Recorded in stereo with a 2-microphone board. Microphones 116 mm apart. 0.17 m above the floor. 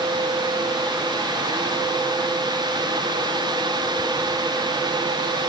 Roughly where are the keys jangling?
No keys jangling in this recording.